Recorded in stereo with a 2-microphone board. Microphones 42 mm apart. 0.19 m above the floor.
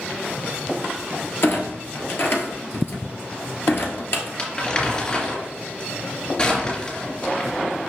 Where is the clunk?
60° left (ahead or behind), 1.3 m.